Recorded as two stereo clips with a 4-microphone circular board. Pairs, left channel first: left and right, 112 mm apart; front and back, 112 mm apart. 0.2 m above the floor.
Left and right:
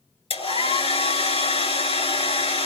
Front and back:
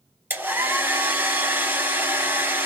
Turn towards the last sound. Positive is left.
turn(degrees=110)